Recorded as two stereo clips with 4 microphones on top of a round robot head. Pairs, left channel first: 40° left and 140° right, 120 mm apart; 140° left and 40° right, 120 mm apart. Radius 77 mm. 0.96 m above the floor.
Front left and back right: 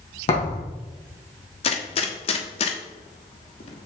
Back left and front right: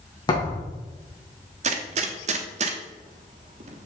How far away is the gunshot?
About 1.1 m.